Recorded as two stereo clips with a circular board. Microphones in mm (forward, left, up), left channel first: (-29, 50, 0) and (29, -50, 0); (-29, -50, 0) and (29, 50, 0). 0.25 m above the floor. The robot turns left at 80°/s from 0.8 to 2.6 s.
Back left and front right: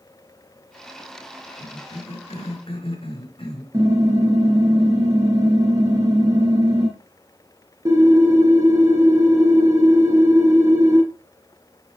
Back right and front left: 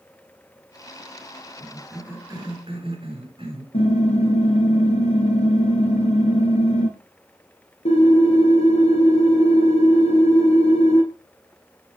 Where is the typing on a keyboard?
115° right, 3 m.